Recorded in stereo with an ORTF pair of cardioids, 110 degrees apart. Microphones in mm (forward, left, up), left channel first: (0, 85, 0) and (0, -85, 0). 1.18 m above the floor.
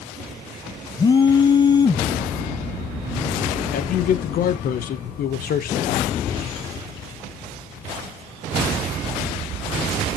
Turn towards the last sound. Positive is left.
turn(degrees=55)